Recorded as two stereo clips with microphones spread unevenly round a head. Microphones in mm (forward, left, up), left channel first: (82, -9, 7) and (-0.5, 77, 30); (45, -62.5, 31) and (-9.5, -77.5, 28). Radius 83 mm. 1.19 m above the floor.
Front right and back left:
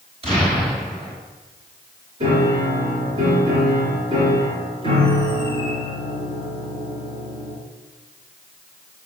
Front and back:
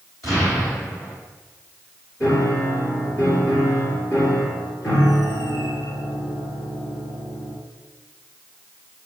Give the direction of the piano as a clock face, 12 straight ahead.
9 o'clock.